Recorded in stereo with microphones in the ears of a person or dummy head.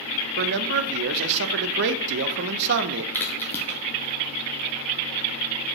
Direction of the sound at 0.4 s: 55° right (ahead or behind).